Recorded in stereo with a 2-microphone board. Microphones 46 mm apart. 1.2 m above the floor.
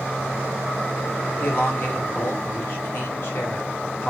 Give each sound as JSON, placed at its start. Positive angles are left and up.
{"t": 1.4, "sound": "a man speaking", "side_deg": 50, "distance_m": 1.4}